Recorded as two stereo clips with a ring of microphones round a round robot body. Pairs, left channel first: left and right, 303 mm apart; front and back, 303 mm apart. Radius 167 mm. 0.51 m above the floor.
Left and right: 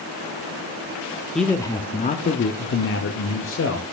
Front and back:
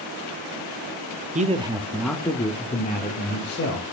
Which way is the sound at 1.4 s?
175° left.